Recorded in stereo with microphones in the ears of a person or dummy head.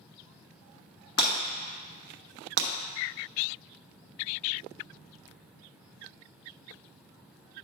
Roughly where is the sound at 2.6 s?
Right.